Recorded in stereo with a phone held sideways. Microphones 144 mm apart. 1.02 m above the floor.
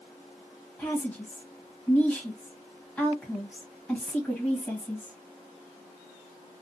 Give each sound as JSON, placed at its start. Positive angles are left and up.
{"t": 0.8, "sound": "a woman speaking", "side_deg": 15, "distance_m": 1.1}